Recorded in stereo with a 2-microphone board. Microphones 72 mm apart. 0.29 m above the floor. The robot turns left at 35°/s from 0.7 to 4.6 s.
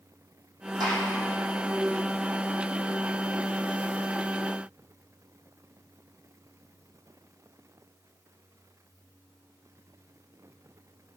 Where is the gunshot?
70° right (ahead or behind), 4.5 m; by 1.1 s 80° right, 4.5 m.